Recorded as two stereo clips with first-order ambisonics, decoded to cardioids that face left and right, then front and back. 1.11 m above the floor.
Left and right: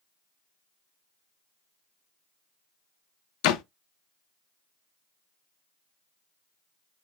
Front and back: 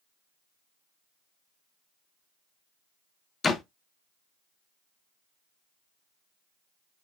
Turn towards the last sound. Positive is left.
turn(degrees=70)